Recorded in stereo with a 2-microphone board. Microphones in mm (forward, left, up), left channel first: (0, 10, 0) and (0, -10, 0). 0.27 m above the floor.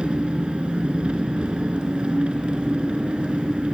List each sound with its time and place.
0.0 s an engine running: 75° right (ahead or behind), 0.8 m